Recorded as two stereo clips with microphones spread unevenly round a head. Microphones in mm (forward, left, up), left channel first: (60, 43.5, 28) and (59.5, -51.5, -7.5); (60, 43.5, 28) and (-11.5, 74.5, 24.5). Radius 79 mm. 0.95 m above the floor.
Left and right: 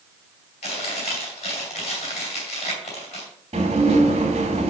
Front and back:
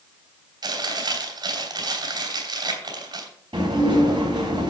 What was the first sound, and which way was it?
Chewing, 130° left.